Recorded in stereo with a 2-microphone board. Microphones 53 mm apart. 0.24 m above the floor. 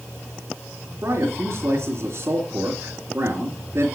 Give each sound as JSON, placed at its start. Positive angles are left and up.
{"t": 1.0, "sound": "a man speaking", "side_deg": -60, "distance_m": 3.0}